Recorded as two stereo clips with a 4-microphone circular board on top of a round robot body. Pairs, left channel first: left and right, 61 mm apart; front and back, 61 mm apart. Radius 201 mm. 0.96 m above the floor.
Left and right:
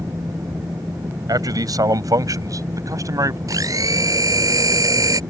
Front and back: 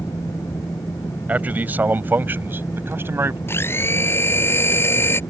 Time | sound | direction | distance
1.3 | a man speaking | 115° right | ?
3.5 | a blender | 55° right | ?